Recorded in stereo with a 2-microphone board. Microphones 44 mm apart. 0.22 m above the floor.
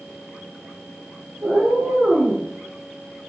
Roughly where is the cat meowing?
Right.